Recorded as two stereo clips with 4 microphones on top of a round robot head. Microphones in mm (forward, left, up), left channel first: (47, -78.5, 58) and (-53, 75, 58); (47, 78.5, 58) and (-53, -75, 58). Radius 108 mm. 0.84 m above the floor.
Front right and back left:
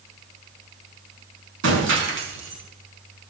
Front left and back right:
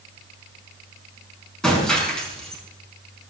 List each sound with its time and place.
1.6 s breaking glass: 145° left, 5 m